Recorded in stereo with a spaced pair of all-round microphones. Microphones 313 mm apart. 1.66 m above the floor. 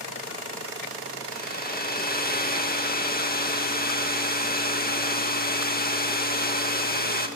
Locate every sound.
1.3 s a hair dryer: 30° left (ahead or behind), 2 m